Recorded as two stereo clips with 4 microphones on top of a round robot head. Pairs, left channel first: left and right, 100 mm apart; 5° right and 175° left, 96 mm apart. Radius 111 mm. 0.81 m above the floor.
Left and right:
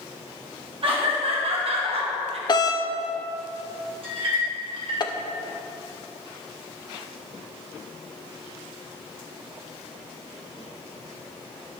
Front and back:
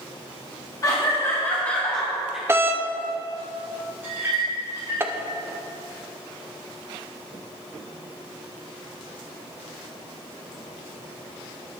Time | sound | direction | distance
0.8 | laughter | 60° right | 2 m
2.5 | a doorbell | 115° left | 1.2 m
4.0 | a clink | 115° right | 3 m